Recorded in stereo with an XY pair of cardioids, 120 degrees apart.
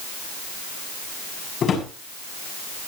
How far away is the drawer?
About 6.5 m.